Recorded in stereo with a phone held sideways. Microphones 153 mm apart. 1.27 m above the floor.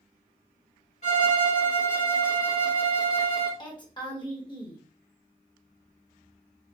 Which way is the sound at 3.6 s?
30° left (ahead or behind).